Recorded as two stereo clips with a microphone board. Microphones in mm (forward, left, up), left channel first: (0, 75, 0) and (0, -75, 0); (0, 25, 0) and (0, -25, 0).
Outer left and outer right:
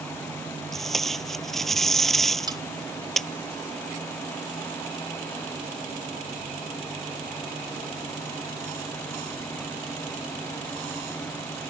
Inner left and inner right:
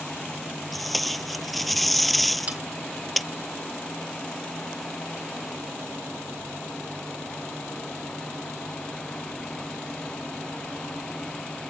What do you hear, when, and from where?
0.7 s tape being pulled: centre (ahead or behind)
2.5 s cutlery clinking: 25° right (ahead or behind)